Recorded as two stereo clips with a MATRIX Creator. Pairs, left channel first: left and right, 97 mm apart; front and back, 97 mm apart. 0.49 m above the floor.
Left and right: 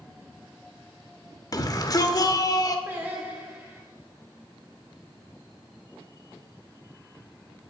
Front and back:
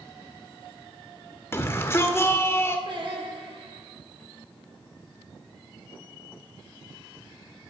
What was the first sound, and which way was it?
A shout, 55° left.